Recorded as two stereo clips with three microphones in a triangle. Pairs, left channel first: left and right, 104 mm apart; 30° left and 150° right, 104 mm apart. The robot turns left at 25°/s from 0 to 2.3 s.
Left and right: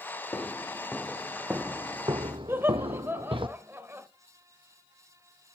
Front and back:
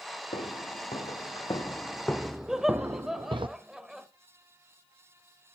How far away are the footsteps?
About 1.7 m.